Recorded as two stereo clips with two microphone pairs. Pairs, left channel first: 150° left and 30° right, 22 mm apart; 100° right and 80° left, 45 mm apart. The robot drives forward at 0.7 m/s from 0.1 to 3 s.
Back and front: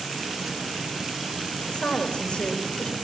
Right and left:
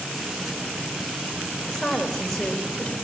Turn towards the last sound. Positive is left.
turn(degrees=175)